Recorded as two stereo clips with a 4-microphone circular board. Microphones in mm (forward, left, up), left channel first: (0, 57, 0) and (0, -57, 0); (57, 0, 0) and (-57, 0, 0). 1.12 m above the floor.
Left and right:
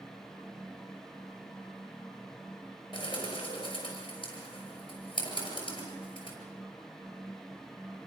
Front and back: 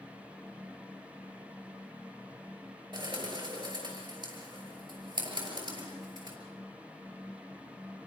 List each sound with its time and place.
2.9 s a bird: 135° left, 6 m